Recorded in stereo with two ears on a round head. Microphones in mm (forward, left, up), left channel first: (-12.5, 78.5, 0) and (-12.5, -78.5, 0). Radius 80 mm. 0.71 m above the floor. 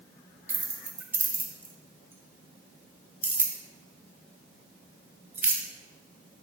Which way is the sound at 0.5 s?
10° right (ahead or behind).